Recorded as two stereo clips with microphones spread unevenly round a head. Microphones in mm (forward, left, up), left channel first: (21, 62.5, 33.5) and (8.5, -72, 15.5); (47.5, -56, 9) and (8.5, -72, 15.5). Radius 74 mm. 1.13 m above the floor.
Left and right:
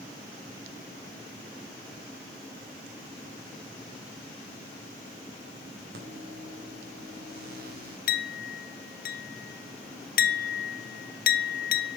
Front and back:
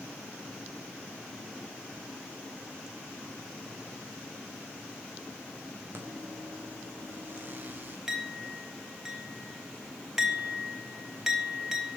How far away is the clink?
About 0.9 m.